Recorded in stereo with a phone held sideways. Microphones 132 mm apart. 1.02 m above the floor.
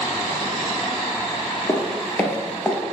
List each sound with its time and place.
1.7 s footsteps: 30° left (ahead or behind), 1.3 m; by 2.8 s 10° left (ahead or behind), 1.5 m